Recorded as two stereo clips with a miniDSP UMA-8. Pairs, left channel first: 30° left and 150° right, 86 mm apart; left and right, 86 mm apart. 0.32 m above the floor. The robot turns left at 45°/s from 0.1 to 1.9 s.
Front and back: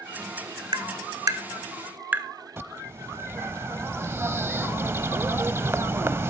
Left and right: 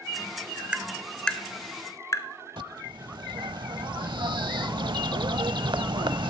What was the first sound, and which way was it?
Tapping, 165° right.